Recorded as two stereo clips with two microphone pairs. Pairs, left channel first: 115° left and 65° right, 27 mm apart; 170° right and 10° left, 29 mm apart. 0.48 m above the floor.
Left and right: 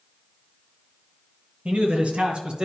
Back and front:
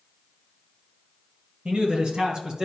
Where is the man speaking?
35° right, 2.5 m.